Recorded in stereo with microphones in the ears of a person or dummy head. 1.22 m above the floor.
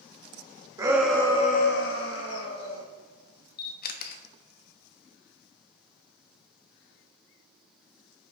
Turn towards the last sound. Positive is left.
turn(degrees=55)  # may be behind; listen again after turning